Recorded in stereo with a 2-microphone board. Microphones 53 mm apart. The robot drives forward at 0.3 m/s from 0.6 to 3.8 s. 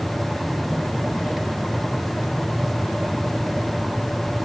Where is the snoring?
I don't hear snoring.